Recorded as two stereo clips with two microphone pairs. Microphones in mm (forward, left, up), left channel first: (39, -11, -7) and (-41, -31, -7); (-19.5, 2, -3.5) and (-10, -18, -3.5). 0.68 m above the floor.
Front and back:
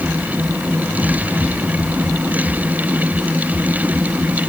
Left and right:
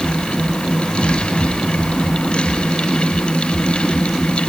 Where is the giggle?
No giggle in this recording.